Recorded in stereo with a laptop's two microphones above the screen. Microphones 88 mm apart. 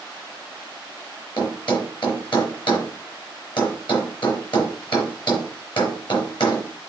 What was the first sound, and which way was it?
A thud, 60° left (ahead or behind).